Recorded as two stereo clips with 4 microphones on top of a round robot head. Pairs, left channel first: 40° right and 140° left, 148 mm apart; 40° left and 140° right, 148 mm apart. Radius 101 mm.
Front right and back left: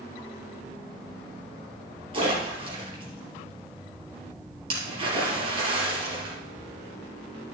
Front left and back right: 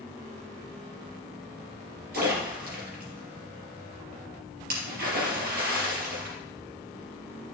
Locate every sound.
2.1 s a splash: 165° right, 4 m